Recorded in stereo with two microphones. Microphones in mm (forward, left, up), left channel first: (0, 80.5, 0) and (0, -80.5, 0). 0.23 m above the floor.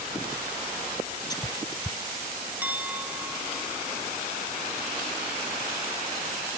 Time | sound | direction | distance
1.3 | whispering | 25° left (ahead or behind) | ?
2.6 | a clink | 10° right (ahead or behind) | ?